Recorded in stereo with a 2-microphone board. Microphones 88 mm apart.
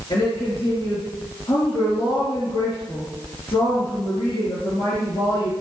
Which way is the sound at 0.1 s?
75° left (ahead or behind).